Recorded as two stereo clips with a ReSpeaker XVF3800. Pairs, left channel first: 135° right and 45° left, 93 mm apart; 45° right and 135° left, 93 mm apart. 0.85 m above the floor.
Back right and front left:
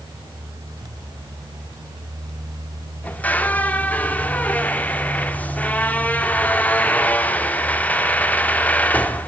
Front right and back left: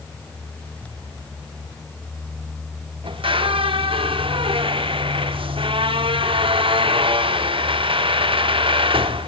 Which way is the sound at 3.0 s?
150° left.